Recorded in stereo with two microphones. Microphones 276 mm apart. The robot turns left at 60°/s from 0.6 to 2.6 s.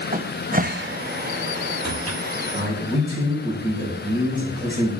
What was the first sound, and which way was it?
A cupboard door, 30° right (ahead or behind).